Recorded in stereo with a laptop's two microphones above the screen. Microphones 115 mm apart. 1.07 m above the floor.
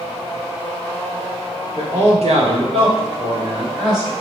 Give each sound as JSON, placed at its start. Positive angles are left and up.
{"t": 1.8, "sound": "a man speaking", "side_deg": -70, "distance_m": 1.3}